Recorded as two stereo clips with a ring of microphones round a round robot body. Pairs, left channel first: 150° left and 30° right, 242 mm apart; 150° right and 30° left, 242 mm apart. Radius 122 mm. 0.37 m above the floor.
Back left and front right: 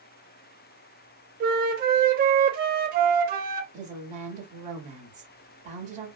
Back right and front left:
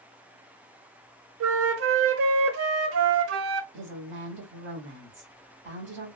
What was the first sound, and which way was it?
A flute, 20° left.